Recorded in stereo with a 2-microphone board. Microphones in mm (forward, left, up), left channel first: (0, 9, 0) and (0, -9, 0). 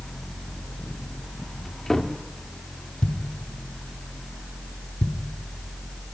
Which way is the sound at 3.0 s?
75° left (ahead or behind).